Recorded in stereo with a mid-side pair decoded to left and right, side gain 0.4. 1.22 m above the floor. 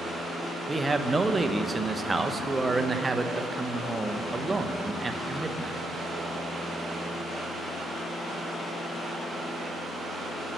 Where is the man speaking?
25° right, 1.0 m.